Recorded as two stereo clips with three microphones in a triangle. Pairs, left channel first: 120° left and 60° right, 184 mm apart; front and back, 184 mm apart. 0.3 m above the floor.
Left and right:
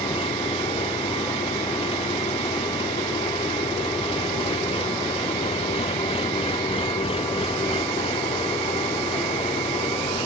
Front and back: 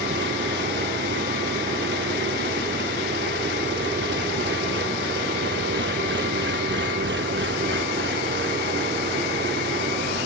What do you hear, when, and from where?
0.0 s an engine running: straight behind